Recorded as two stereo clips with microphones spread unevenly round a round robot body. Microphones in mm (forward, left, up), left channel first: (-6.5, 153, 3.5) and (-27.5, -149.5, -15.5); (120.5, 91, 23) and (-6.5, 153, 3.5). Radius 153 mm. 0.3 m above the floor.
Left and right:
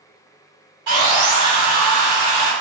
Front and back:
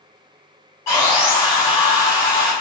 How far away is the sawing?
About 2.0 m.